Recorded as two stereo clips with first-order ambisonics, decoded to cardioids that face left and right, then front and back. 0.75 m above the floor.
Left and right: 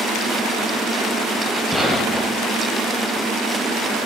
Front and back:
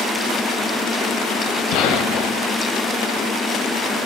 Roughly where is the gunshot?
Ahead.